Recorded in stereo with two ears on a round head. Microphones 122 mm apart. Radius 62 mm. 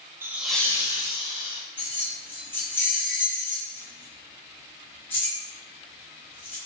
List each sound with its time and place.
0.2 s laughter: 15° right (ahead or behind), 0.6 m; by 1.6 s 35° left (ahead or behind), 1.3 m
1.8 s keys jangling: 15° left (ahead or behind), 1.2 m